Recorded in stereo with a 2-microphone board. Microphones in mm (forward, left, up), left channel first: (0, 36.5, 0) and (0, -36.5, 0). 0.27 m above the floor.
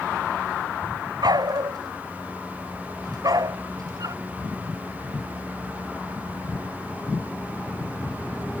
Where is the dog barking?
65° right (ahead or behind); by 4.2 s 55° right (ahead or behind).